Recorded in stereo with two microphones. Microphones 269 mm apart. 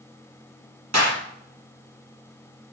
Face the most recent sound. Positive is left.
turn(degrees=-75)  # may be behind; listen again after turning